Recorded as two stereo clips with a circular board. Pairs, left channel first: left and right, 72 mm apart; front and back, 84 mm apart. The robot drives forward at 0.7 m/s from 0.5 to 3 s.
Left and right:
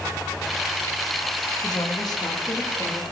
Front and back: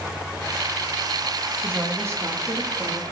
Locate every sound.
1.6 s a woman speaking: 110° left, 1.7 m; by 3.0 s 135° left, 2 m